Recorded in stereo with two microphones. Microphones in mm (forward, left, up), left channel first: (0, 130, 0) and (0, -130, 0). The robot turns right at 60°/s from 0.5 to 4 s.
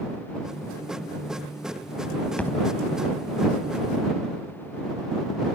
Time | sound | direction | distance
2.4 | a thud | 5° left (ahead or behind) | ?